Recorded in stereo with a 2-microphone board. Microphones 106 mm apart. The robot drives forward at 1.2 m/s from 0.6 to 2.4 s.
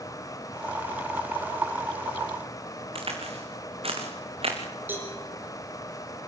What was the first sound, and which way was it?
A crack, 60° right (ahead or behind).